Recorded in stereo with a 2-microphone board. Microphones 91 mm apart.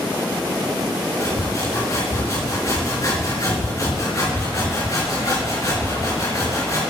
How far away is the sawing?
About 4 m.